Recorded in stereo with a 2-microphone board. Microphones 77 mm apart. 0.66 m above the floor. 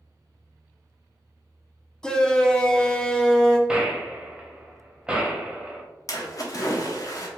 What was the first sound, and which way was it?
A shout, 10° left (ahead or behind).